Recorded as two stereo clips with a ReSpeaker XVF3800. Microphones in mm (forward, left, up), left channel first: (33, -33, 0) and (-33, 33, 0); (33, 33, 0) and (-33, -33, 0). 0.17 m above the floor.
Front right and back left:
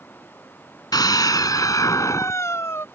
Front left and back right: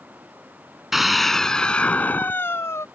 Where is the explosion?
I don't hear an explosion.